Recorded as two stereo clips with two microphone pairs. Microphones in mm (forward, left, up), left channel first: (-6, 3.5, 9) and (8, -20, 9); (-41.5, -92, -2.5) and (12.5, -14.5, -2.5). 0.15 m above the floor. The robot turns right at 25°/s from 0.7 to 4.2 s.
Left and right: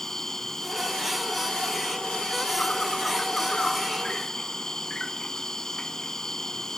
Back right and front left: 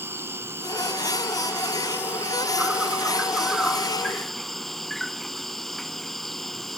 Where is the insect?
70° left; by 6.8 s 160° left.